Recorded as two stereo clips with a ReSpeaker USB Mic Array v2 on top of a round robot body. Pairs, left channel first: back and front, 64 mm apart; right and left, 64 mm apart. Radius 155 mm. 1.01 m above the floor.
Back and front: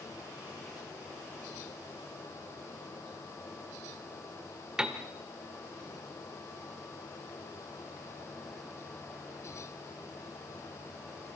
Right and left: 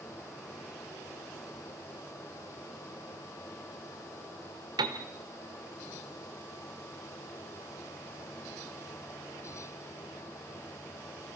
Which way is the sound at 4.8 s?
80° left.